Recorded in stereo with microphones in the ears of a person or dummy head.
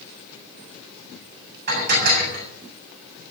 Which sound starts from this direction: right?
Dishes clattering, at 1.7 s.